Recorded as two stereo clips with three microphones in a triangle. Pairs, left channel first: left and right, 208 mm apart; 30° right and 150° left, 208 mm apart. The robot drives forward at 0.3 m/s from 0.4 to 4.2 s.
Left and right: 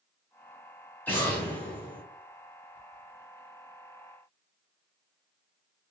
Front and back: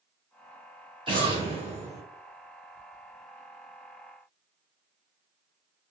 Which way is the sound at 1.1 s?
160° left.